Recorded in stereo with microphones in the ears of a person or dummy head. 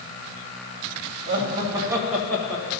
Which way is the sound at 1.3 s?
30° right (ahead or behind).